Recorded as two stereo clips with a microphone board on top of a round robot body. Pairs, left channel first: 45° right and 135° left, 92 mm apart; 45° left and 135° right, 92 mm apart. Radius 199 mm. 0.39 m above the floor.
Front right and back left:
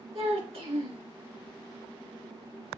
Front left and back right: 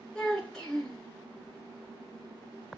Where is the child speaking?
130° left, 4 m.